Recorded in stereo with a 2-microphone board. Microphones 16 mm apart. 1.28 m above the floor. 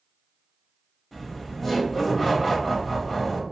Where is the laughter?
5° right (ahead or behind), 1.0 m.